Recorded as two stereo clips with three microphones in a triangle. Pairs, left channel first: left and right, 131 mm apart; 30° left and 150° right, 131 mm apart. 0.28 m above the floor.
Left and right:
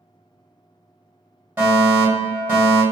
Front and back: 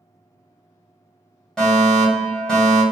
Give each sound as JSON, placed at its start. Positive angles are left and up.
{"t": 1.6, "sound": "a fire alarm", "azimuth_deg": -50, "distance_m": 1.8}